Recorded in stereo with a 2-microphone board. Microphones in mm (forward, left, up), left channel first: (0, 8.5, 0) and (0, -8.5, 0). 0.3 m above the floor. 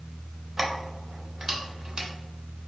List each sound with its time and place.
0.6 s keys jangling: 15° right (ahead or behind), 0.6 m; by 2.1 s 45° right (ahead or behind), 1.2 m